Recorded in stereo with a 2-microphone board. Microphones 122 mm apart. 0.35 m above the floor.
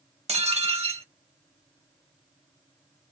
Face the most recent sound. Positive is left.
turn(degrees=-55)  # may be behind; listen again after turning